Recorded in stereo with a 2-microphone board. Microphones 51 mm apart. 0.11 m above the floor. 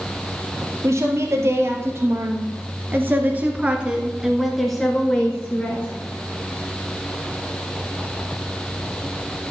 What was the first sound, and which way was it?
A woman speaking, 65° right (ahead or behind).